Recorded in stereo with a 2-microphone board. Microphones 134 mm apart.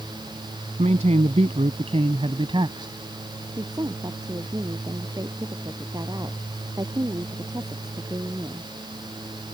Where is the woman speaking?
30° right (ahead or behind).